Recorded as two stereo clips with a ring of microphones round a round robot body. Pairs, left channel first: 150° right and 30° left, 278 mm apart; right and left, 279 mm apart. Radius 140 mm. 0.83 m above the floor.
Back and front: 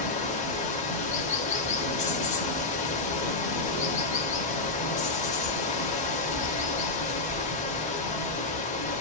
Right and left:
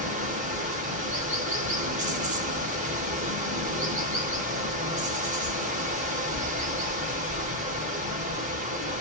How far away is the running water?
About 0.7 m.